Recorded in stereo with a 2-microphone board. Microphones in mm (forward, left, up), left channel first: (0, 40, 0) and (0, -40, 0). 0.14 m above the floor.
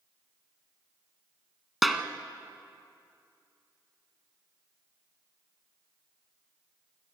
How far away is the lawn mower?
No lawn mower in this recording.